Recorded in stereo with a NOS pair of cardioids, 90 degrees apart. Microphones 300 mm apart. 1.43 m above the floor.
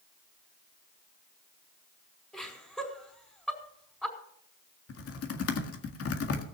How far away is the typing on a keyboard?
About 1.9 m.